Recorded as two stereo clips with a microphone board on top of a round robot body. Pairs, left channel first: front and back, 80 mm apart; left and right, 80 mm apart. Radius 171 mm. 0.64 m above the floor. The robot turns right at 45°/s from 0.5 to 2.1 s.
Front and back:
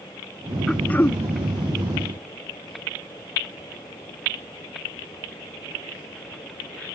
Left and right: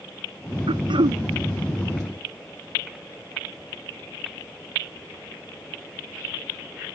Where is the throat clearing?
85° right; by 1.2 s 60° right.